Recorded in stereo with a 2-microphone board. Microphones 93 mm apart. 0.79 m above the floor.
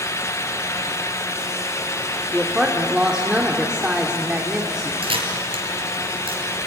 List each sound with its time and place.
2.3 s a woman speaking: 5° right (ahead or behind), 2.5 m
5.0 s a camera shutter: 75° right (ahead or behind), 4.5 m